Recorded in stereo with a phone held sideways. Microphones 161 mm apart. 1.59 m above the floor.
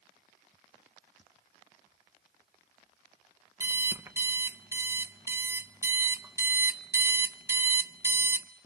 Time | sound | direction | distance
3.6 | an alarm clock | 15° right (ahead or behind) | 0.9 m